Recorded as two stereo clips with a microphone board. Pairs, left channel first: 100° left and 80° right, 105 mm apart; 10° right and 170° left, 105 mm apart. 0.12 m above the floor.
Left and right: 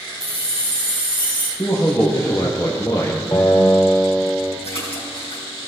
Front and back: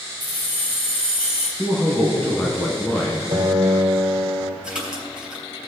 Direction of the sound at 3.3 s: 145° left.